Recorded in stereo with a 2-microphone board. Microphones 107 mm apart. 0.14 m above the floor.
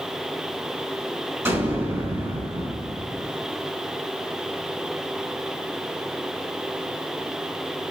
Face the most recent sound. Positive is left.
turn(degrees=-25)  # may be behind; listen again after turning